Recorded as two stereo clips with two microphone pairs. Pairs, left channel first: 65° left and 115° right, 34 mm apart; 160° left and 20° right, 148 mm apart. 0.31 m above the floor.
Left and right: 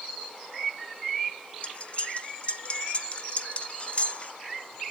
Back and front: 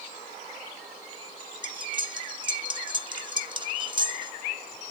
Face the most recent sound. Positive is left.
turn(degrees=25)